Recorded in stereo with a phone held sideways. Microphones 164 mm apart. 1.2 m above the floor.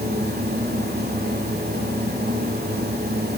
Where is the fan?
80° right, 1.9 m.